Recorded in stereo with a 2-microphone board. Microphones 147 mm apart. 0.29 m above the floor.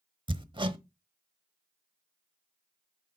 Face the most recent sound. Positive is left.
turn(degrees=-35)  # may be behind; listen again after turning